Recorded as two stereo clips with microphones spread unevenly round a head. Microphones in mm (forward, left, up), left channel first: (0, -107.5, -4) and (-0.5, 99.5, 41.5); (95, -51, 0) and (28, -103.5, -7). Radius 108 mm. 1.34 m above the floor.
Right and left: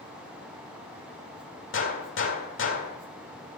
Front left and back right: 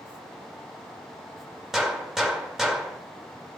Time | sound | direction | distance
1.7 | a gunshot | 55° right | 2.0 m